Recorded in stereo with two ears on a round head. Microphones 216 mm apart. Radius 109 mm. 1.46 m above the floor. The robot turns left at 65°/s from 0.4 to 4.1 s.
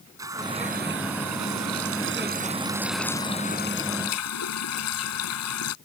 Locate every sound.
0.2 s a running tap: 15° right; by 5.8 s 105° left